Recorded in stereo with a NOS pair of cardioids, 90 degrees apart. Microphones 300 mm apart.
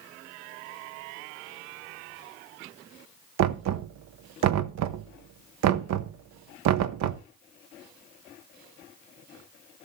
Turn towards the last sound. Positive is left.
turn(degrees=-60)